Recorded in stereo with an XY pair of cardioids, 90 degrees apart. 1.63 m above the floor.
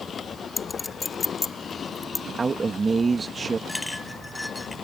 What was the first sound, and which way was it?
A clink, 30° left.